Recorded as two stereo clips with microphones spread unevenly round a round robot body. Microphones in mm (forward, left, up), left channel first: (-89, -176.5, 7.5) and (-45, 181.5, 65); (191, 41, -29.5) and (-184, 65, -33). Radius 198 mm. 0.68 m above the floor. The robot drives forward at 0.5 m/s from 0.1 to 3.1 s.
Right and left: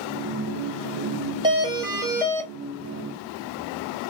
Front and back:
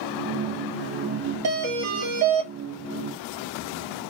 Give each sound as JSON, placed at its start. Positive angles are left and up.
{"t": 1.4, "sound": "a doorbell", "azimuth_deg": 165, "distance_m": 1.3}